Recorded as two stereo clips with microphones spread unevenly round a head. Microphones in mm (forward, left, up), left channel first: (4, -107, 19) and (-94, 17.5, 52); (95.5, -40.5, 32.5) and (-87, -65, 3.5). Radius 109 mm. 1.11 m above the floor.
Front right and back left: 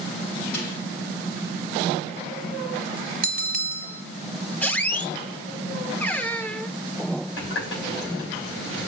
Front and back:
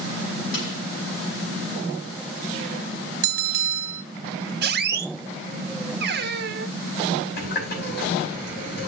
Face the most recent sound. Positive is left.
turn(degrees=-25)